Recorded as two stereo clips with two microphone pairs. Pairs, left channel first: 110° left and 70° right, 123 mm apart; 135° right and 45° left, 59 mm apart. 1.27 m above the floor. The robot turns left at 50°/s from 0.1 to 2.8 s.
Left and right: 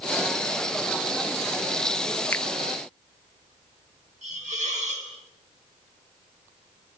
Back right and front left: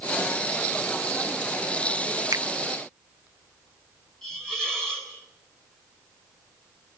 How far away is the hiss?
About 5 m.